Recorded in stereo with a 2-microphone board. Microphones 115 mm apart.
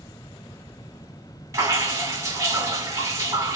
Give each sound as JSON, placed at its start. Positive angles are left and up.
{"t": 1.5, "sound": "dripping", "side_deg": -25, "distance_m": 1.8}